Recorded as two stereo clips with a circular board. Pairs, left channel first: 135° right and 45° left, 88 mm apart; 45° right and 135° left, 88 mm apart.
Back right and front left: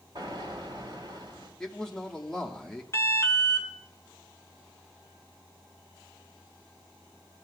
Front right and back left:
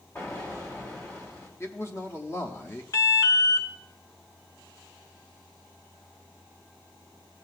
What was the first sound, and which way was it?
An explosion, 15° left.